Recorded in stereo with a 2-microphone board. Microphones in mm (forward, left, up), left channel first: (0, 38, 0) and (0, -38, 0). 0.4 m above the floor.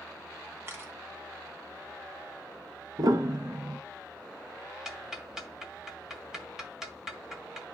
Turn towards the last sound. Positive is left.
turn(degrees=-5)  # may be behind; listen again after turning